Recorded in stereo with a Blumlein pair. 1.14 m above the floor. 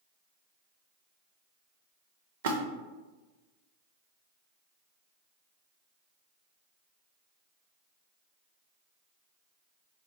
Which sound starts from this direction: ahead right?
A splash, at 2.4 s.